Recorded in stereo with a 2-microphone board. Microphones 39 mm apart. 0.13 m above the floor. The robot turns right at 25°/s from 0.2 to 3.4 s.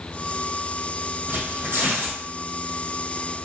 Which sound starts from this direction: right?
Tearing paper, at 1.3 s.